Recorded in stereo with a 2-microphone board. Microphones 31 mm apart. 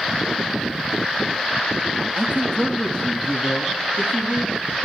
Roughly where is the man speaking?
Left.